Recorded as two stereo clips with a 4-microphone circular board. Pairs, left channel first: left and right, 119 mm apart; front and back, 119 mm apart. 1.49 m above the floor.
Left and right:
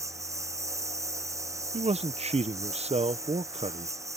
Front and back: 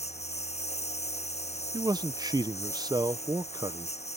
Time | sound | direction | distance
0.0 | a lawn mower | 25° right | ?
1.7 | a man speaking | 125° right | ?